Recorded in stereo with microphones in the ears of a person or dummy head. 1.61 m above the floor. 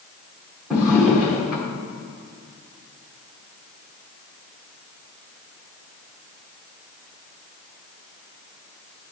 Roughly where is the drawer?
Centre.